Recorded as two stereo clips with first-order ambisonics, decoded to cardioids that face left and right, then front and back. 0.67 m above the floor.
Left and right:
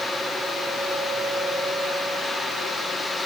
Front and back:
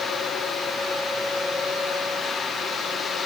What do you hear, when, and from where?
Only background noise.